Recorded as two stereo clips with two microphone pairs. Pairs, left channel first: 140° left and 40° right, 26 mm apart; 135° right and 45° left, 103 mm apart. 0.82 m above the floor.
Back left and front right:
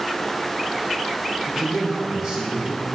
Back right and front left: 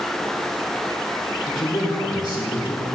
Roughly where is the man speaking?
Right.